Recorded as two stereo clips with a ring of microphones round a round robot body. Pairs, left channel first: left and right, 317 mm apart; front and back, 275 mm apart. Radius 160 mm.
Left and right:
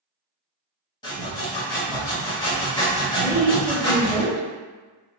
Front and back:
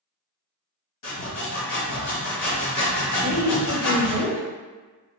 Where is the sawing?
15° left, 1.2 m.